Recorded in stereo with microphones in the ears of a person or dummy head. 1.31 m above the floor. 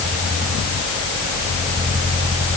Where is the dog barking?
I don't hear a dog barking.